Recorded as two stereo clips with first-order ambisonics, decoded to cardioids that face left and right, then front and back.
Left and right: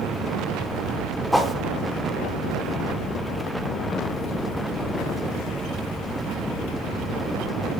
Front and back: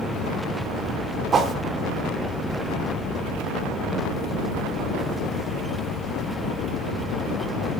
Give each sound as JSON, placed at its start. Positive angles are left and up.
{"t": 1.3, "sound": "a whoosh", "azimuth_deg": 175, "distance_m": 0.9}